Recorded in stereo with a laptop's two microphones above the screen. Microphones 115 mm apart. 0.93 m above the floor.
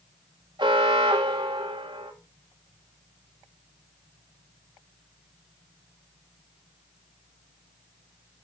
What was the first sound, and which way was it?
An alarm, 45° right (ahead or behind).